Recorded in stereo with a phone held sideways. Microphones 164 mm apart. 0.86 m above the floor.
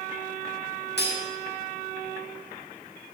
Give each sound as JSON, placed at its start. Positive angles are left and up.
{"t": 1.0, "sound": "cutlery clinking", "side_deg": 85, "distance_m": 0.9}